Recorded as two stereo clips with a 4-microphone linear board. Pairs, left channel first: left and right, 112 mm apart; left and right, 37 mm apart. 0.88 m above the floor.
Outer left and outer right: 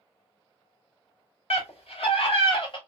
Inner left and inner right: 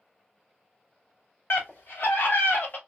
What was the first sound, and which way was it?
A scream, 65° left (ahead or behind).